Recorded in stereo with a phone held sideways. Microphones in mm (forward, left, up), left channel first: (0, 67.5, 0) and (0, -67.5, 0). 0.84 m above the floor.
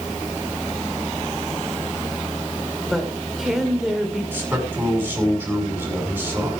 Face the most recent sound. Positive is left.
turn(degrees=-15)  # may be behind; listen again after turning